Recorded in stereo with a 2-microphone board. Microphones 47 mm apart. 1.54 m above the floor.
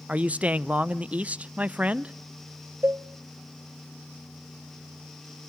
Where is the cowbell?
60° right (ahead or behind), 0.6 m.